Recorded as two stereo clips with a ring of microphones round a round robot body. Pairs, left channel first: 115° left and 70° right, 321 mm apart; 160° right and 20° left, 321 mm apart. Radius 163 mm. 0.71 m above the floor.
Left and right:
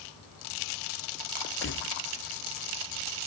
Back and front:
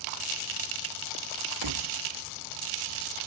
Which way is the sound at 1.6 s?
55° left.